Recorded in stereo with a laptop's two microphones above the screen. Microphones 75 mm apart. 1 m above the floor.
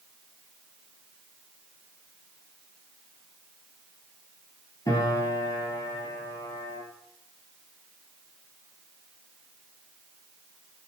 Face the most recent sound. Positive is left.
turn(degrees=50)  # may be behind; listen again after turning